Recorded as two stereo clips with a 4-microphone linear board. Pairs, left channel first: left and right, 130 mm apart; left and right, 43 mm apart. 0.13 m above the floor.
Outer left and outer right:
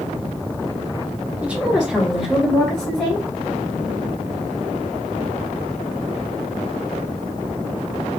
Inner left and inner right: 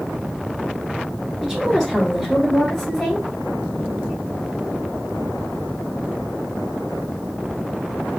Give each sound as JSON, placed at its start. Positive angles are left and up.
{"t": 1.4, "sound": "a woman speaking", "side_deg": -10, "distance_m": 2.0}